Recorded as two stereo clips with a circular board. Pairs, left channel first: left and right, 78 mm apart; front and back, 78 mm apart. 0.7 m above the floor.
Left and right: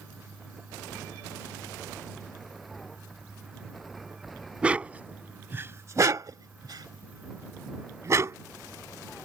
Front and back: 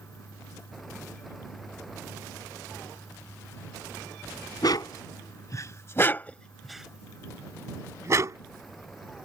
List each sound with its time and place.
4.6 s a dog barking: 15° right; by 8.4 s 140° right